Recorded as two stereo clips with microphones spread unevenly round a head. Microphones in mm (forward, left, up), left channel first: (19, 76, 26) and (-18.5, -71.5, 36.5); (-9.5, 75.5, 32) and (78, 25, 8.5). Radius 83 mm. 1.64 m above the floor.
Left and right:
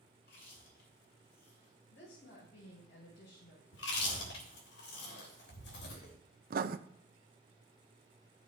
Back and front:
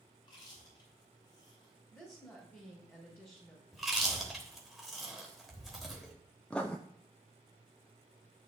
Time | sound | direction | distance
0.2 | chewing | 110° left | 6.5 m
1.9 | a woman speaking | 85° left | 5.5 m
3.7 | chewing | 65° left | 3.5 m
6.5 | writing | 130° right | 0.6 m